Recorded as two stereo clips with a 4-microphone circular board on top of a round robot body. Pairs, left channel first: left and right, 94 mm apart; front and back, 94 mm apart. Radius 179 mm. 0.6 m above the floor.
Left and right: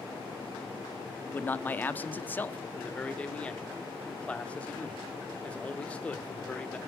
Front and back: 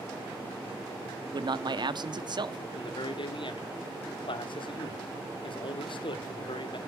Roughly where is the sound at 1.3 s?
Behind.